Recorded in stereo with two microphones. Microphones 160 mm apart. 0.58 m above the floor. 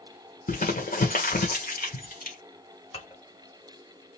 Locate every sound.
0.5 s crumpling: 60° left (ahead or behind), 1.6 m
2.9 s dishes clattering: 35° left (ahead or behind), 2 m